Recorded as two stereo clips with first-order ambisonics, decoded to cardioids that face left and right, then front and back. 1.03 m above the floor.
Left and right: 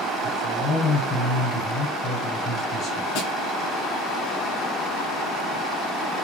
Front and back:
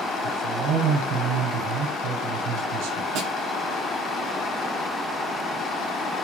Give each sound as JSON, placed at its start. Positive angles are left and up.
{"t": 0.2, "sound": "a man speaking", "azimuth_deg": 165, "distance_m": 5.0}
{"t": 3.1, "sound": "a snare drum", "azimuth_deg": 130, "distance_m": 7.5}